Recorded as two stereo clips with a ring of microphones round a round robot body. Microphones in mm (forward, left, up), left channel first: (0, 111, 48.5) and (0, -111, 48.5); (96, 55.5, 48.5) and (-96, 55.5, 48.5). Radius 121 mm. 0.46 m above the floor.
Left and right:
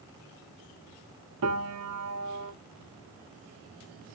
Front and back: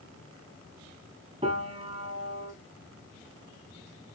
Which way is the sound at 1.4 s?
110° right.